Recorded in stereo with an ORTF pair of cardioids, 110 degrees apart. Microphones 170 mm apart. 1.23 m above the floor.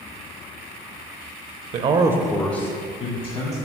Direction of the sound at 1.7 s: 50° right.